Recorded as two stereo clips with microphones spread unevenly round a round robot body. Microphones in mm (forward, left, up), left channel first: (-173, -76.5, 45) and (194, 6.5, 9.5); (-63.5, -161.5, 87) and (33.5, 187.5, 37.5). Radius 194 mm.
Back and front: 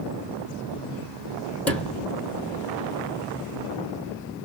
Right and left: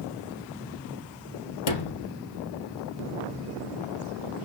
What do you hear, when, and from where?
1.7 s a sliding door: 80° right, 1.8 m